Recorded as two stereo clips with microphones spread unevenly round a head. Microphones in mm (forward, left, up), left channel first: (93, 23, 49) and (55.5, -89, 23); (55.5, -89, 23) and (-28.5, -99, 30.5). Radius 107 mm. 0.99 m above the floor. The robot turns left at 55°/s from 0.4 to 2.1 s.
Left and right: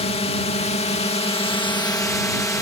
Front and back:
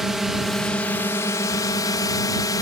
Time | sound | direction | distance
0.0 | a drone | 100° left | ?